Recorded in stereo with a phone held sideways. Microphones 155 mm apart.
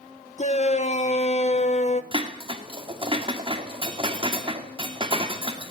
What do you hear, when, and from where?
0.4 s a shout: 45° left (ahead or behind), 0.9 m
2.1 s dishes clattering: 35° right (ahead or behind), 2 m